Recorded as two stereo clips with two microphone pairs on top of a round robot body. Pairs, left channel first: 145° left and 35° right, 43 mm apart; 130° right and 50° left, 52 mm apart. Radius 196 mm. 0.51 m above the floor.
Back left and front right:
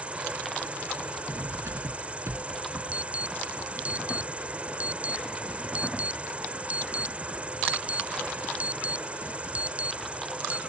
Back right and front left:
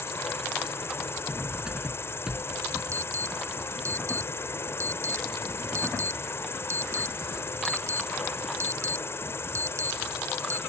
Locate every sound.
0.0 s an insect: 95° right
1.3 s cutlery clinking: 25° right
2.9 s an alarm: 20° left